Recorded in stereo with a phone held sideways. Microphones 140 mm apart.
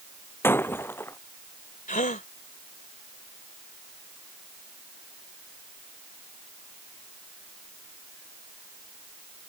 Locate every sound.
0.4 s breaking glass: 15° left (ahead or behind)
1.9 s a gasp: 70° left (ahead or behind)